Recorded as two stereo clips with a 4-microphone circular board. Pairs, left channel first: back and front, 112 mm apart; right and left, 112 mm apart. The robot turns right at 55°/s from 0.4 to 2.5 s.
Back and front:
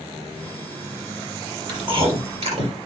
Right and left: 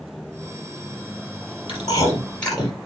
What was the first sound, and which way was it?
Chewing, 50° right.